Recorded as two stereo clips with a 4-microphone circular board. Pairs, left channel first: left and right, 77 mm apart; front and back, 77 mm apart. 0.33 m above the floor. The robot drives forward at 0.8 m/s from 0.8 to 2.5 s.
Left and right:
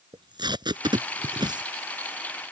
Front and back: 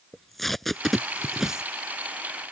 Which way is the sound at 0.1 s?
90° right.